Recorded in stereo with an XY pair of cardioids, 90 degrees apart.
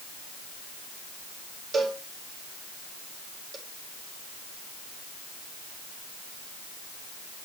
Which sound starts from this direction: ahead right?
A cowbell, at 1.7 s.